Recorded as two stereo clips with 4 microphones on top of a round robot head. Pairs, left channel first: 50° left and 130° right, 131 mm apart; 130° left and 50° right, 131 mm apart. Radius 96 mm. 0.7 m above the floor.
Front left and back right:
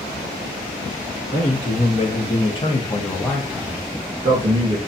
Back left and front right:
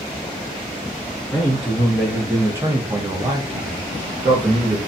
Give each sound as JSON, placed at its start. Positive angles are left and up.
{"t": 1.3, "sound": "a man speaking", "azimuth_deg": 35, "distance_m": 1.4}